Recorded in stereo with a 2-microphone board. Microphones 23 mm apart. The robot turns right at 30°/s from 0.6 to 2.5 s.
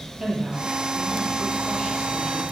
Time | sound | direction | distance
0.2 | a woman speaking | 15° right | 8 m